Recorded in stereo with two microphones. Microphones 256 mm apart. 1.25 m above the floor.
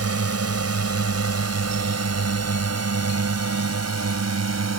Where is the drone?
70° right (ahead or behind); by 4.8 s 85° right.